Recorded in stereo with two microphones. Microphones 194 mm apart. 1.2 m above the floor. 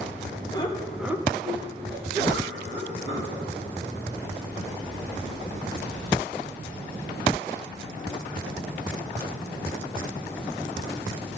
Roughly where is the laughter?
Left.